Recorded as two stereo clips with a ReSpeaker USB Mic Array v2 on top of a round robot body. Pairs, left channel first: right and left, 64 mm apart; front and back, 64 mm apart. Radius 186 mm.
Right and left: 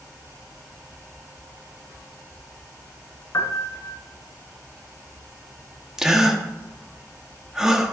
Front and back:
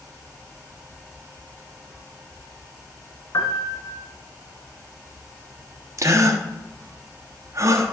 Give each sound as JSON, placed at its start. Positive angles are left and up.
{"t": 3.3, "sound": "a piano", "azimuth_deg": -40, "distance_m": 1.3}
{"t": 6.0, "sound": "a gasp", "azimuth_deg": 165, "distance_m": 1.5}